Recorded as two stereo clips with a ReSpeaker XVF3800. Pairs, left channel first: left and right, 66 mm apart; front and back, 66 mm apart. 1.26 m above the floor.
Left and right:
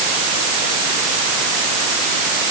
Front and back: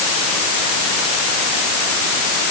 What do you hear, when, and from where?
Only background noise.